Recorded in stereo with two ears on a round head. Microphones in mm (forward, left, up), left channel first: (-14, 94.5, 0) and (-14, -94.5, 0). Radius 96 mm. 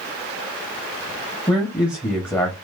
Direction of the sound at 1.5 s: 15° left (ahead or behind).